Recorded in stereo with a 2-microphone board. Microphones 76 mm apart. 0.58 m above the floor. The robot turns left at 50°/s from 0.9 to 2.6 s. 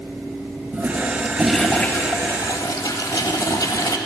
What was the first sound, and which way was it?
A toilet flushing, 155° right.